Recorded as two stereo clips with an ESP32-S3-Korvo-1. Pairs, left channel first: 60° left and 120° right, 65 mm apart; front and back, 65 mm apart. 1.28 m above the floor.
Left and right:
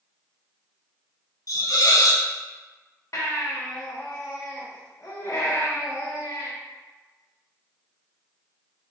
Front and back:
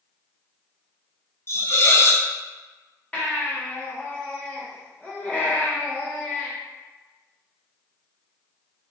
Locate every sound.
1.5 s a hiss: 40° left, 0.6 m
3.1 s a baby crying: 60° left, 1.1 m